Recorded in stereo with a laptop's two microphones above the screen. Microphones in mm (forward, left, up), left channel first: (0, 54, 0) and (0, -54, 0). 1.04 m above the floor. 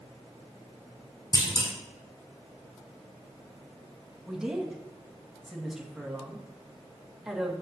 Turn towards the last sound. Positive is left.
turn(degrees=-5)  # may be behind; listen again after turning